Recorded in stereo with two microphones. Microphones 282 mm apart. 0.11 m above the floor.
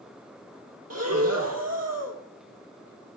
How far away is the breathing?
About 0.7 m.